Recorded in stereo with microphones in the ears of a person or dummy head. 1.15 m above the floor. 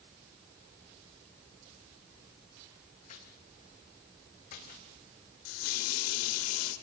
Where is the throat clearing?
No throat clearing in this recording.